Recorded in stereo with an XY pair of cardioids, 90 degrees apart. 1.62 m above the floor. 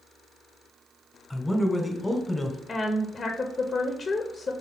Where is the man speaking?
10° left, 1.3 m.